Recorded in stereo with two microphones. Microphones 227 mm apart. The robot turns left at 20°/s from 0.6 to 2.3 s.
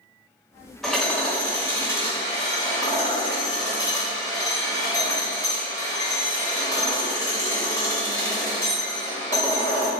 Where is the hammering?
Centre (ahead or behind), 1.4 m; by 9.9 s 15° left (ahead or behind), 1.4 m.